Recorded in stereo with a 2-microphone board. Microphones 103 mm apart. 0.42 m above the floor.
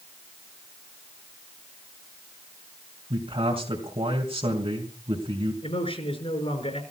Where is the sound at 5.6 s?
75° left (ahead or behind), 5 m.